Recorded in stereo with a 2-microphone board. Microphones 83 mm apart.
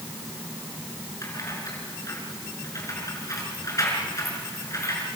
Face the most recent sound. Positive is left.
turn(degrees=40)  # may be behind; listen again after turning